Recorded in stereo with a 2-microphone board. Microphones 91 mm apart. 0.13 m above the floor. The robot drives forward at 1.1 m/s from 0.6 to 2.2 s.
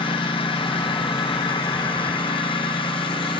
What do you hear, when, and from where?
0.0 s a lawn mower: 70° left (ahead or behind)